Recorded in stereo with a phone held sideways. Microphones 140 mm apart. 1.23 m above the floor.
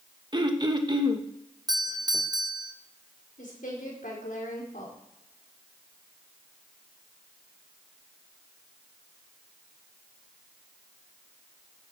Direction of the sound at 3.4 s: 80° left.